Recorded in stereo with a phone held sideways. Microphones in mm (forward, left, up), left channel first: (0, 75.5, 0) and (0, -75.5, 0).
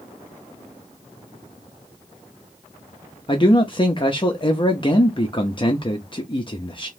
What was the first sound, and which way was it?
A man speaking, 35° left (ahead or behind).